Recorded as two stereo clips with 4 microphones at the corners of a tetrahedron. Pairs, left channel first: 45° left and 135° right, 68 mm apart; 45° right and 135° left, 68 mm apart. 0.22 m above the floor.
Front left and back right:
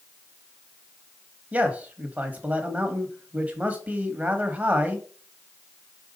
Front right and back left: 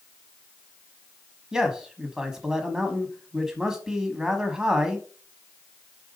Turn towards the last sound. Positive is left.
turn(degrees=-160)